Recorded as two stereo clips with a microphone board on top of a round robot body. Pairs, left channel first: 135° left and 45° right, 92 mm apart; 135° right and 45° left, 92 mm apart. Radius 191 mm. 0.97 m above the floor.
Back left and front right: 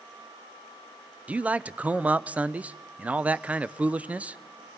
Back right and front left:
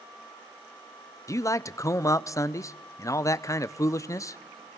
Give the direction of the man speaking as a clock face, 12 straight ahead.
4 o'clock.